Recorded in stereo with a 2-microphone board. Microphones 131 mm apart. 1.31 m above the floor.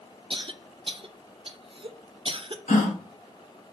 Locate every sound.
0.3 s a cough: 45° right (ahead or behind), 0.7 m
2.7 s a gasp: 75° left (ahead or behind), 1.4 m